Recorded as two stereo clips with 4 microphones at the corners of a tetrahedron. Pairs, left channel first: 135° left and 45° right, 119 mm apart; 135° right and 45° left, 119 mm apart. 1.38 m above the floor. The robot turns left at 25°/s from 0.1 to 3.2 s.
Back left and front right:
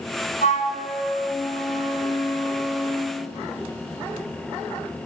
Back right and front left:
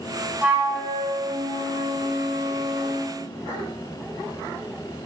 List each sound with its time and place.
0.4 s a flute: 125° left, 3.5 m; by 3.1 s 55° left, 3.5 m